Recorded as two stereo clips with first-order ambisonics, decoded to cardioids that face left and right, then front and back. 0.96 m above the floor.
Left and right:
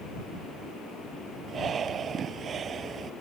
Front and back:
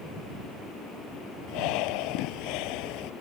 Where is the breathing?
25° right.